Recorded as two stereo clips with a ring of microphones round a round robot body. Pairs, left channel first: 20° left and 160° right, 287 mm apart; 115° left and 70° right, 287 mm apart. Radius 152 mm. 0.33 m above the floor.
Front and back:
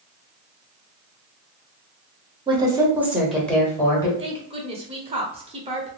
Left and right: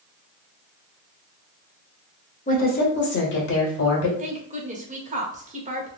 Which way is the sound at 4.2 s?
105° right.